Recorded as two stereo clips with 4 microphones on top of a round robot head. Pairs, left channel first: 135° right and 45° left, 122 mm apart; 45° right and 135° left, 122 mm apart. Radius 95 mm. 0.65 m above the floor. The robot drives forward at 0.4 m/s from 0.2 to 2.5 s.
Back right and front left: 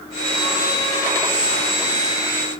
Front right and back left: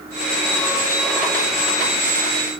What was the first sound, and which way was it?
Only background noise.